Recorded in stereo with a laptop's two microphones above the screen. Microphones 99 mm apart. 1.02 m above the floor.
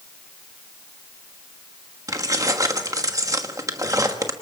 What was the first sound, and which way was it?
Keys jangling, 35° right (ahead or behind).